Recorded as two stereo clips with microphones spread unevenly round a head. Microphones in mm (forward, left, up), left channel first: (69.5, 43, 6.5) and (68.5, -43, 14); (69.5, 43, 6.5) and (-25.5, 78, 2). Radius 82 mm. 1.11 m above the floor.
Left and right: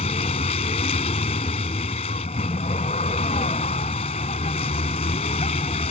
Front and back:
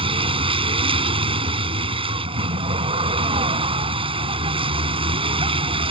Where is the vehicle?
130° left.